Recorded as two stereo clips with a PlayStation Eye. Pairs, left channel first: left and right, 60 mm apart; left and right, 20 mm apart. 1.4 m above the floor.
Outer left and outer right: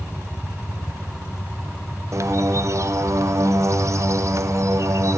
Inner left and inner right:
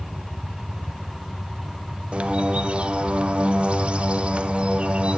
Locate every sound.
2.1 s a bird: 55° right (ahead or behind), 0.5 m